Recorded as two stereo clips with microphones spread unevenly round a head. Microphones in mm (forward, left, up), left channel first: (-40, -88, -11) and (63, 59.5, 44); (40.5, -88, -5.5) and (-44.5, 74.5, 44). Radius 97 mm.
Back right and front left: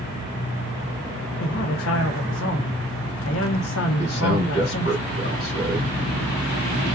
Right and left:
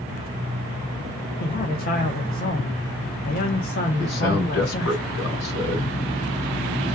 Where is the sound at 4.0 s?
95° right, 3 m.